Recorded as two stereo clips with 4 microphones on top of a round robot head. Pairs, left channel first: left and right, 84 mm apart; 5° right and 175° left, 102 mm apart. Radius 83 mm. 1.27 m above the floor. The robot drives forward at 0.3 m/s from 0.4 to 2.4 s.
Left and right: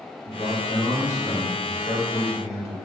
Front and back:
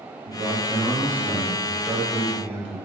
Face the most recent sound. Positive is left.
turn(degrees=145)